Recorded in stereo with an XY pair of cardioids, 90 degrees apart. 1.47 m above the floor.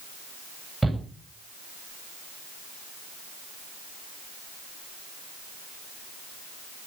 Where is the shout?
10° right, 9.5 m.